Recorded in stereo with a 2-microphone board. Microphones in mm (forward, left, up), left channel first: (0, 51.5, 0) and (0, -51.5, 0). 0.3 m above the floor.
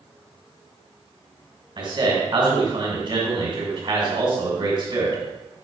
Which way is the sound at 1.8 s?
50° right (ahead or behind).